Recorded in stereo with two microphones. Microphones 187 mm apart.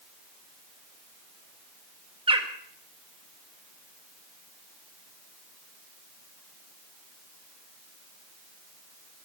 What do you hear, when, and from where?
2.3 s a bird: 30° right (ahead or behind), 1.4 m